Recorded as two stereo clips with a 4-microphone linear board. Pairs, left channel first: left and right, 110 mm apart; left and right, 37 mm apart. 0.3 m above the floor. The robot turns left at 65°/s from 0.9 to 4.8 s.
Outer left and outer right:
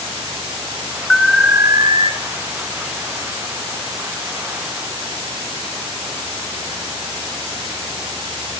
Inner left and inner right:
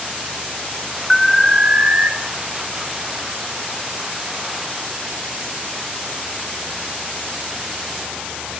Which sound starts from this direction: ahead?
An alarm, at 1.1 s.